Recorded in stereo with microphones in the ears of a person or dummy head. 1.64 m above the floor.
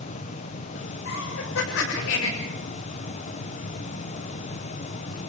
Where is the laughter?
75° left (ahead or behind), 7.5 m.